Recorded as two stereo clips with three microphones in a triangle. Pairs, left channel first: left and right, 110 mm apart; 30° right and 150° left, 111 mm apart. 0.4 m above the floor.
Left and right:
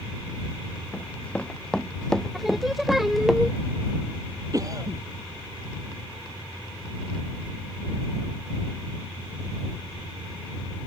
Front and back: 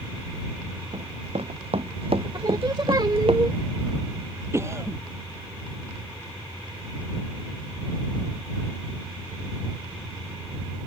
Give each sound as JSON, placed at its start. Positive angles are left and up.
{"t": 0.9, "sound": "running footsteps", "azimuth_deg": 165}
{"t": 2.3, "sound": "singing", "azimuth_deg": -175}
{"t": 4.5, "sound": "a cough", "azimuth_deg": -145}